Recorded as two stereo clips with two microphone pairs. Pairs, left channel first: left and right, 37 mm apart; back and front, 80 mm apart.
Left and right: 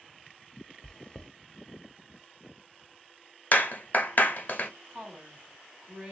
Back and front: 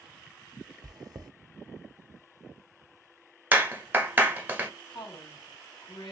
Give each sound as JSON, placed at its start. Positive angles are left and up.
{"t": 0.8, "sound": "chewing", "azimuth_deg": 25, "distance_m": 0.7}
{"t": 3.5, "sound": "a clap", "azimuth_deg": 65, "distance_m": 1.2}
{"t": 4.9, "sound": "a woman speaking", "azimuth_deg": -175, "distance_m": 3.0}